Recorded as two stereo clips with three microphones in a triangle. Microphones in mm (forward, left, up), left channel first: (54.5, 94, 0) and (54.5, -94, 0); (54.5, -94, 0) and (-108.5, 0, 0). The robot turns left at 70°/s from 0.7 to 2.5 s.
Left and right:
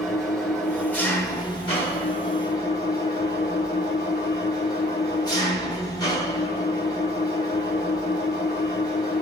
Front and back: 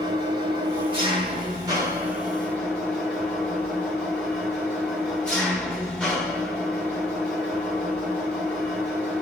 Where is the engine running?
175° left, 1.0 m; by 9.2 s 50° left, 1.0 m.